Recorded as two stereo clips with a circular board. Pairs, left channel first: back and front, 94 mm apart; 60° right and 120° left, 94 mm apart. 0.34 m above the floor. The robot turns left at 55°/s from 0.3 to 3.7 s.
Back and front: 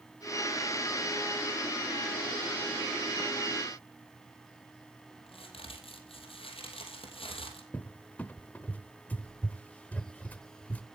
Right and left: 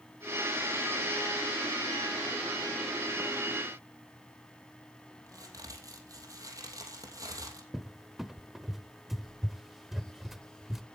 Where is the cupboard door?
155° right, 0.5 m.